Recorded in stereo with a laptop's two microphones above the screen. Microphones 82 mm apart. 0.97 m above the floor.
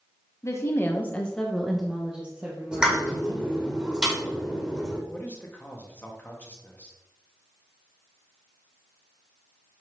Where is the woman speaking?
35° left (ahead or behind), 1.0 m; by 3.7 s 30° right (ahead or behind), 2 m.